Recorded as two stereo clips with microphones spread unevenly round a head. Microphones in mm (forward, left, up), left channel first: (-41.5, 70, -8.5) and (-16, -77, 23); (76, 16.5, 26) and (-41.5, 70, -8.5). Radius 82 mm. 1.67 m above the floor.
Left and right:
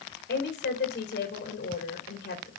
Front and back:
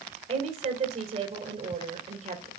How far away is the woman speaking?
About 2.5 m.